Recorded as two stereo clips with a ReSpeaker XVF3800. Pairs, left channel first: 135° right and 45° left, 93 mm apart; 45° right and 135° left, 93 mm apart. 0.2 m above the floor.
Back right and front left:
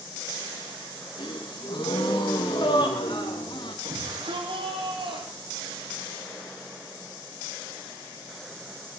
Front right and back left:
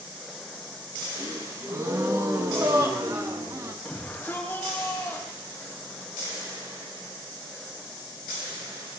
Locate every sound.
1.2 s a gasp: 170° right, 4 m
3.9 s a shout: 25° left, 8.5 m